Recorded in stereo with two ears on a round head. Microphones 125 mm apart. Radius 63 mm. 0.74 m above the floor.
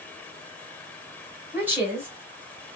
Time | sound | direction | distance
1.5 | a woman speaking | 15° right (ahead or behind) | 2.5 m